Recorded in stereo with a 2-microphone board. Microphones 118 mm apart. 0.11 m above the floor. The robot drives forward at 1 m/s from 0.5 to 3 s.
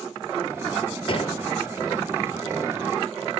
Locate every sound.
1.1 s a gunshot: 50° left (ahead or behind), 1.1 m; by 1.4 s 55° left (ahead or behind), 1.1 m